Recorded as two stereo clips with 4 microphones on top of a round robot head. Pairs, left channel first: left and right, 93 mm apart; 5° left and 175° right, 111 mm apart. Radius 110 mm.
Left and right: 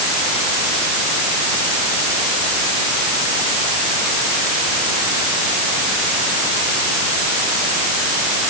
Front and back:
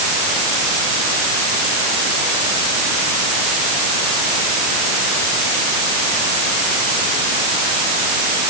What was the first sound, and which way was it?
Only background noise.